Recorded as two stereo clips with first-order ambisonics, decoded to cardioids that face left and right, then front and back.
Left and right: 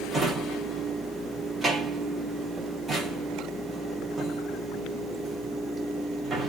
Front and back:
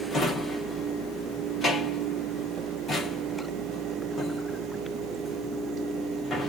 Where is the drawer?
35° right, 0.9 m.